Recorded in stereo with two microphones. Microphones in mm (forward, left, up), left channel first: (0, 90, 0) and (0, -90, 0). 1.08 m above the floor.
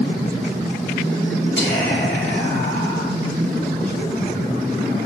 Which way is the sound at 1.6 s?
80° left.